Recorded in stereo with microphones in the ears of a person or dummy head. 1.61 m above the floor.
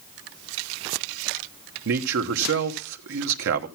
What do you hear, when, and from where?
1.9 s a man speaking: 60° right (ahead or behind), 1.1 m